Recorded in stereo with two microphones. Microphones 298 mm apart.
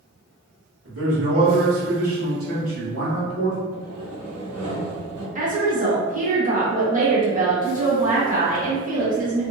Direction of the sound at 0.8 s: 50° right (ahead or behind).